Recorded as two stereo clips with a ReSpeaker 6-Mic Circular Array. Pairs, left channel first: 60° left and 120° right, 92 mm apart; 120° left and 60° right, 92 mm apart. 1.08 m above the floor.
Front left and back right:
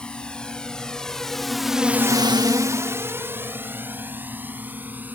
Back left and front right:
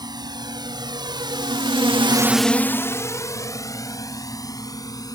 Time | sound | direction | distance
0.0 | a drone | 20° right | ?